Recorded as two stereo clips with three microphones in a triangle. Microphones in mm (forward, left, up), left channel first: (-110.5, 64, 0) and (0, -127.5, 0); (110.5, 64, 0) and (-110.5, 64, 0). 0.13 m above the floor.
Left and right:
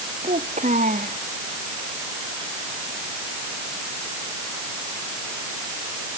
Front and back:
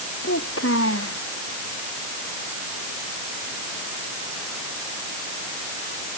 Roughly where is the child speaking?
Ahead.